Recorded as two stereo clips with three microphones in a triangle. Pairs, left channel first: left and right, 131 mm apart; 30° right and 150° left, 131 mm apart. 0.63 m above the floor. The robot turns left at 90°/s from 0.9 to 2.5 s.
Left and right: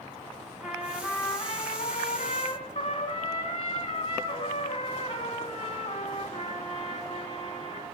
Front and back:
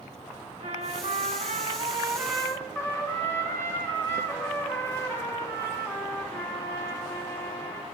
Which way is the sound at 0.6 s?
175° right.